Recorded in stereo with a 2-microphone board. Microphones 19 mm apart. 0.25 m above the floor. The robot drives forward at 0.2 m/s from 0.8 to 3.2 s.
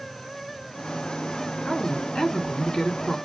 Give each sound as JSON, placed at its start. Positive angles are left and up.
{"t": 1.6, "sound": "a woman speaking", "side_deg": 55, "distance_m": 2.5}